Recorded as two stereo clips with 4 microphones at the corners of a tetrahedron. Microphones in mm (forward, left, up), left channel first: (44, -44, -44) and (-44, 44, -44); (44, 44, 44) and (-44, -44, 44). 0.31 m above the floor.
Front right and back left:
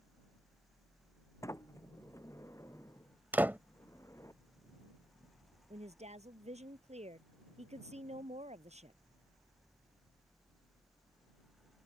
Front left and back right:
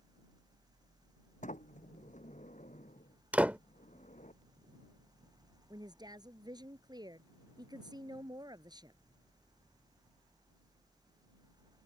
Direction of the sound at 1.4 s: 25° left.